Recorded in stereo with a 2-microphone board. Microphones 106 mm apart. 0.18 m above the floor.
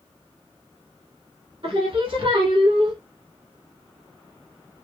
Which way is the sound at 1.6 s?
60° right (ahead or behind).